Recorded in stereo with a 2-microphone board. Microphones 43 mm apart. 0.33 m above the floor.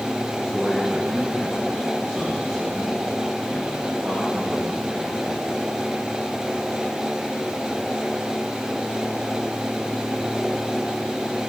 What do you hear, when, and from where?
0.4 s a man speaking: 5° right (ahead or behind), 3 m; by 5.4 s 40° right (ahead or behind), 7.5 m